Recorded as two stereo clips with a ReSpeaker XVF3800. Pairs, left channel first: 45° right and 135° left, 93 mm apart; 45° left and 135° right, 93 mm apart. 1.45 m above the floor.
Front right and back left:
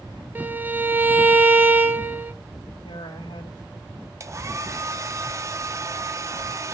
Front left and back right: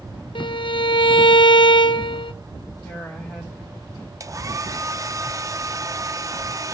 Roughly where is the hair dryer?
Behind.